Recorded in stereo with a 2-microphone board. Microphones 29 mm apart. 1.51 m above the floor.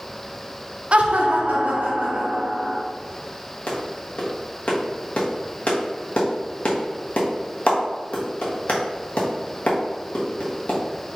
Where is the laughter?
45° right (ahead or behind), 0.5 m; by 2.8 s 60° right (ahead or behind), 1.6 m.